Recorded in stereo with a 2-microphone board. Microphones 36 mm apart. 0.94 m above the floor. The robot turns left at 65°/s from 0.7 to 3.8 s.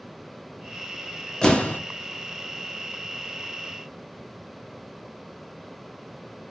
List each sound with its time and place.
1.4 s an explosion: 20° left (ahead or behind), 1.0 m; by 1.8 s 45° left (ahead or behind), 1.0 m